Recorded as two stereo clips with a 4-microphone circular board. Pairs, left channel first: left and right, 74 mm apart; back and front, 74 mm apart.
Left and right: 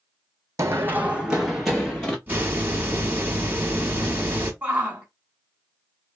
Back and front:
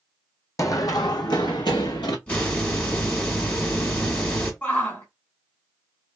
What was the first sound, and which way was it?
Running footsteps, 135° right.